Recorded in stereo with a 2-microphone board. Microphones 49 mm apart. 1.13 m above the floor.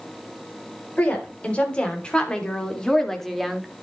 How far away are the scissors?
I don't hear scissors.